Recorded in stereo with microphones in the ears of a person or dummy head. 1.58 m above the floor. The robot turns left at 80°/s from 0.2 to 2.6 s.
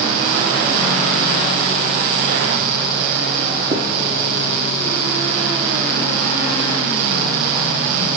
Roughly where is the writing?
Right.